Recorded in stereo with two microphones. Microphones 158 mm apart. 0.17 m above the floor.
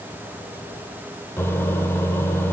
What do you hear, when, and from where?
1.4 s a microwave: 15° left (ahead or behind), 3 m